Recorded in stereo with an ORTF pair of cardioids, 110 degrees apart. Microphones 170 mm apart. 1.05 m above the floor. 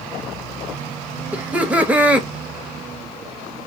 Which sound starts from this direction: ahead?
Laughter, at 1.3 s.